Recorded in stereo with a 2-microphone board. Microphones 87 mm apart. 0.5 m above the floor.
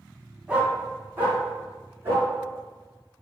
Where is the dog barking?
15° right (ahead or behind), 1.0 m; by 2.3 s 30° right (ahead or behind), 2 m.